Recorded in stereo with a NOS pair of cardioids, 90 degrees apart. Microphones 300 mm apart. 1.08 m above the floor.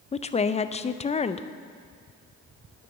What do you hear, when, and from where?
0.1 s a woman speaking: 20° left, 0.5 m